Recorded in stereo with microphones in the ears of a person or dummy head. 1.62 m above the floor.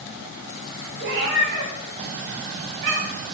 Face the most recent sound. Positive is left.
turn(degrees=-55)  # may be behind; listen again after turning